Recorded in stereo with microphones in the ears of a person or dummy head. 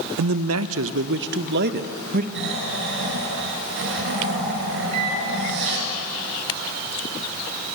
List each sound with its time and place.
0.2 s a man speaking: 80° right, 0.9 m; by 2.2 s 45° right (ahead or behind), 1.5 m
2.4 s snoring: 65° right (ahead or behind), 4.5 m
4.9 s a microwave: 30° right (ahead or behind), 2.5 m